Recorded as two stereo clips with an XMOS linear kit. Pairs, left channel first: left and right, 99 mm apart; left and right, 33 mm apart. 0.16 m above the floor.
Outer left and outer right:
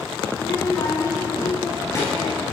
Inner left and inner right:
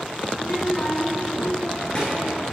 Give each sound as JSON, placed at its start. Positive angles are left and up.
{"t": 0.3, "sound": "a child speaking", "side_deg": 20, "distance_m": 0.8}